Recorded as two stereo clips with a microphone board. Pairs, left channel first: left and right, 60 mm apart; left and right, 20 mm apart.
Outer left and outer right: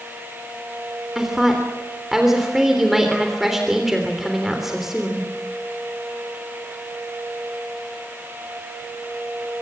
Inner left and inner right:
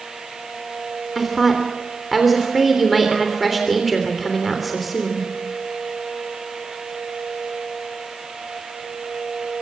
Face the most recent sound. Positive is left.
turn(degrees=-5)  # may be behind; listen again after turning